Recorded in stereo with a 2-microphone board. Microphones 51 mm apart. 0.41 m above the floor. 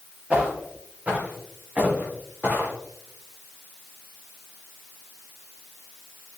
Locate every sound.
0.3 s footsteps: 25° right (ahead or behind), 4.5 m; by 2.7 s 45° right (ahead or behind), 4 m